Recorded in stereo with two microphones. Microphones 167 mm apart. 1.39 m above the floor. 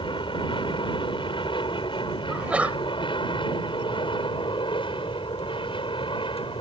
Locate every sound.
0.0 s an aircraft: 30° left (ahead or behind)
2.3 s a sneeze: 10° right (ahead or behind)